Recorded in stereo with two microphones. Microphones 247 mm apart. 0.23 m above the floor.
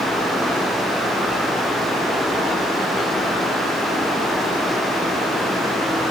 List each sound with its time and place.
Only background noise.